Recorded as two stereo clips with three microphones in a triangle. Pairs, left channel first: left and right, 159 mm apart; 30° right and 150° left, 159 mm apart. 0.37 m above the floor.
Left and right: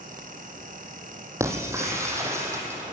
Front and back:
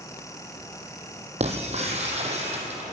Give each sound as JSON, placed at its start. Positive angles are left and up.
{"t": 1.4, "sound": "breaking glass", "azimuth_deg": -165, "distance_m": 2.0}